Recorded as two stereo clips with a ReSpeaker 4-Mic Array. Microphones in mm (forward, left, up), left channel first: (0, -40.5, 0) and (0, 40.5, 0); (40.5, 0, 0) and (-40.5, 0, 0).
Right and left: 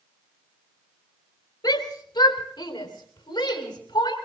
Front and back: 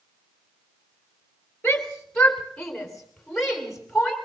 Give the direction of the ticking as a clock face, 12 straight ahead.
I don't hear ticking.